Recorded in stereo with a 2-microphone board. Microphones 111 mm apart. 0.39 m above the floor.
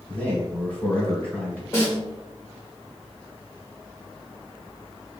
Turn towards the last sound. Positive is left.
turn(degrees=25)  # may be behind; listen again after turning